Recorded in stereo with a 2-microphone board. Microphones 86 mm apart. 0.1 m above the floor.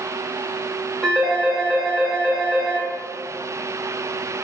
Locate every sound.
1.0 s a phone ringing: centre (ahead or behind), 2.5 m